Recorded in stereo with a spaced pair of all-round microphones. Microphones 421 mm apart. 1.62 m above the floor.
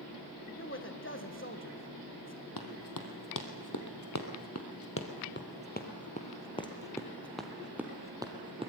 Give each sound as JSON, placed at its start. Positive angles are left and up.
{"t": 0.6, "sound": "a man speaking", "side_deg": 30, "distance_m": 1.6}
{"t": 2.6, "sound": "running footsteps", "side_deg": 55, "distance_m": 3.0}